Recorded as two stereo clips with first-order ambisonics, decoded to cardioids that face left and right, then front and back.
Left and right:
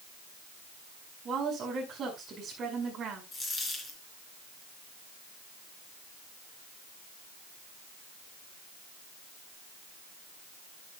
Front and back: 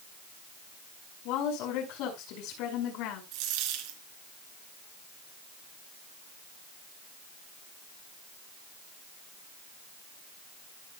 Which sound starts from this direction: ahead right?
A woman speaking, at 1.2 s.